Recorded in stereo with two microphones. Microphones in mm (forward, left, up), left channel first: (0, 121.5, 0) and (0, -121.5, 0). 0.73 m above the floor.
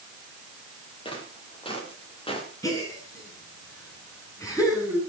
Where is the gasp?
15° left (ahead or behind), 9 m.